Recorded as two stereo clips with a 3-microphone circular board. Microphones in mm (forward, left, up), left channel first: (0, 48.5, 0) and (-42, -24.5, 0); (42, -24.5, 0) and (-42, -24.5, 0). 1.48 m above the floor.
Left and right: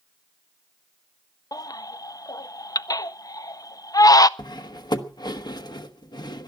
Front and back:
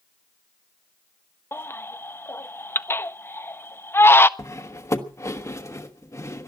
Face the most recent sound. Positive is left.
turn(degrees=45)